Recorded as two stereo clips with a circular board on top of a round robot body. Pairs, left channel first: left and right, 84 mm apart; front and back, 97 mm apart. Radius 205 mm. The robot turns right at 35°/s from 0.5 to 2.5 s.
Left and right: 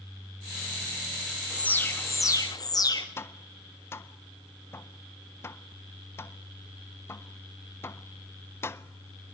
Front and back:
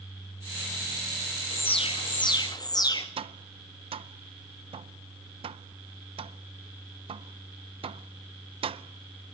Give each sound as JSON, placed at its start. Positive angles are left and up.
{"t": 1.5, "sound": "an alarm", "azimuth_deg": 10, "distance_m": 3.0}
{"t": 3.2, "sound": "tapping", "azimuth_deg": 155, "distance_m": 0.5}